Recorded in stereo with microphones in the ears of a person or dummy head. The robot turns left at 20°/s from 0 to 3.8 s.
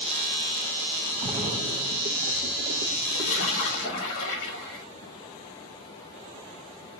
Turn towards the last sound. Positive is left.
turn(degrees=65)  # may be behind; listen again after turning